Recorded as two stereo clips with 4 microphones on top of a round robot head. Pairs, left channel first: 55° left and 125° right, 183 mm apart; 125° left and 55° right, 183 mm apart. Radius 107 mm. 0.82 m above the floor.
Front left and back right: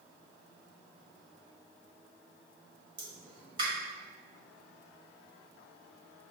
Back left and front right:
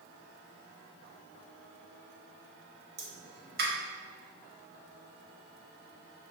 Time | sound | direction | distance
3.0 | a pop | 65° right | 1.4 m